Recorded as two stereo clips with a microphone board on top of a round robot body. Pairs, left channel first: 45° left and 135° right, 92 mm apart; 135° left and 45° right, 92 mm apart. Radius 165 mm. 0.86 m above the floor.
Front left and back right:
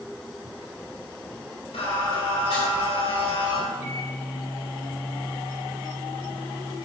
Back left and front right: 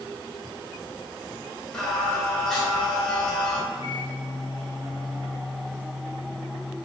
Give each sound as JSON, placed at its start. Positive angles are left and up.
{"t": 1.7, "sound": "singing", "azimuth_deg": 50, "distance_m": 3.5}
{"t": 3.7, "sound": "a microwave", "azimuth_deg": 160, "distance_m": 1.9}